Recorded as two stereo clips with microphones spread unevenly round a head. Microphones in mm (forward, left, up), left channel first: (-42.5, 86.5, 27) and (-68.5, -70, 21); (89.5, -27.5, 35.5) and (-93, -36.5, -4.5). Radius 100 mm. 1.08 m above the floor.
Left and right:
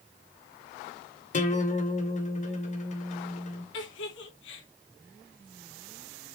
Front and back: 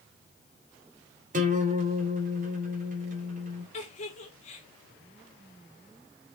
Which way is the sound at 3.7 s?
65° left.